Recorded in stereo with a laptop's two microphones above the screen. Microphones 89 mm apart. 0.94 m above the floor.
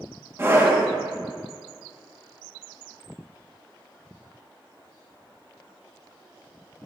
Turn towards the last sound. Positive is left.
turn(degrees=-30)  # may be behind; listen again after turning